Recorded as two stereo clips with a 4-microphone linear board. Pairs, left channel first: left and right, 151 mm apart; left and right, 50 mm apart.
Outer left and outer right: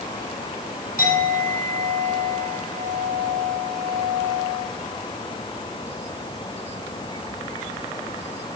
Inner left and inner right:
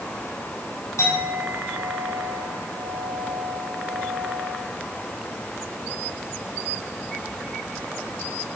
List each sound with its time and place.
1.0 s a clink: 75° left (ahead or behind), 6.5 m